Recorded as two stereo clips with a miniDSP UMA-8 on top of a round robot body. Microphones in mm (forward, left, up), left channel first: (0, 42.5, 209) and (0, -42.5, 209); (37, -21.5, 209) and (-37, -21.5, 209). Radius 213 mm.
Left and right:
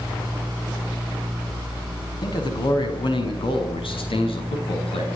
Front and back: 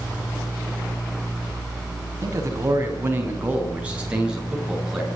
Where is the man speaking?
130° left, 5.5 m; by 5.1 s 90° left, 7 m.